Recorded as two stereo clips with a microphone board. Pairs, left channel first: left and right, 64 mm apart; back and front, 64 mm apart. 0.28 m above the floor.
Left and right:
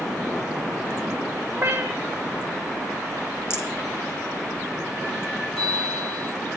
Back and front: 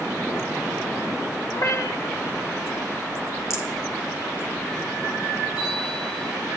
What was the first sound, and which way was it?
A cat meowing, 155° right.